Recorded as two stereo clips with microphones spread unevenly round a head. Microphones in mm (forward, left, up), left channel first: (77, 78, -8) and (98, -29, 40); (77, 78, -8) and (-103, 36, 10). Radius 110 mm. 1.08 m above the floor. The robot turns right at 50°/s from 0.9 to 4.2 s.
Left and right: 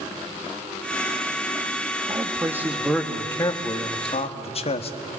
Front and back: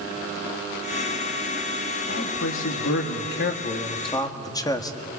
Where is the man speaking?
25° right, 2 m; by 5.0 s 80° left, 2 m.